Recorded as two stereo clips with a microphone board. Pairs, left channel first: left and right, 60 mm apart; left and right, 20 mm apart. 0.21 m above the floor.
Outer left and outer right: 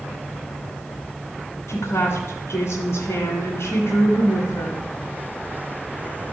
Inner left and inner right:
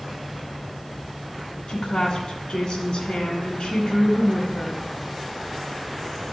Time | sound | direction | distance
1.7 | a woman speaking | 50° left (ahead or behind) | 2 m